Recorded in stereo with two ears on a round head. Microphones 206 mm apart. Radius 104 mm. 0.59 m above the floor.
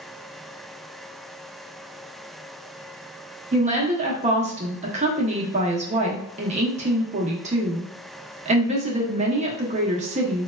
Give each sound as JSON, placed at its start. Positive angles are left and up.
{"t": 3.5, "sound": "a woman speaking", "side_deg": -30, "distance_m": 0.6}